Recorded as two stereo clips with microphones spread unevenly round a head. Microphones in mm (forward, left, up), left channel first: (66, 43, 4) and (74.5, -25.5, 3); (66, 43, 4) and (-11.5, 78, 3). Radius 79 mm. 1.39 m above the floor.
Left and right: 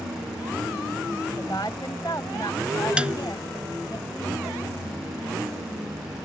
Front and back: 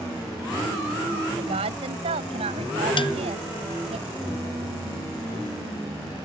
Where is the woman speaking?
165° left.